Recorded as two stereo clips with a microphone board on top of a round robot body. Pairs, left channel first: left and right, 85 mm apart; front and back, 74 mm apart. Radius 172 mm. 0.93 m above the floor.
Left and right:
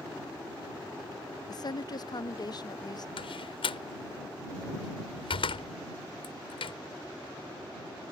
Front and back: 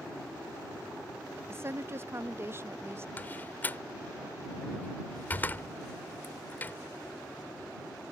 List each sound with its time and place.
1.5 s a woman speaking: 125° left
3.2 s a door slam: 70° left